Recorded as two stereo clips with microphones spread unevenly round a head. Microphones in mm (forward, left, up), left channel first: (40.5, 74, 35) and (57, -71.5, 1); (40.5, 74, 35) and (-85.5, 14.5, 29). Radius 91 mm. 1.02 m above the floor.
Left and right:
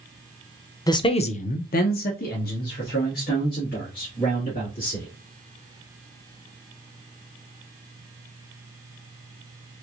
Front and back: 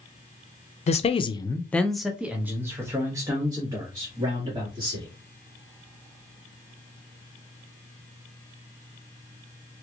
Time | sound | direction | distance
0.9 | a man speaking | 25° left | 0.5 m